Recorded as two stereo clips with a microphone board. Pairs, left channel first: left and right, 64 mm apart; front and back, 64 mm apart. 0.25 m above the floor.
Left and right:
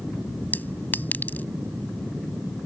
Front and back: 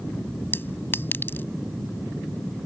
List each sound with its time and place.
0.5 s a clink: 40° left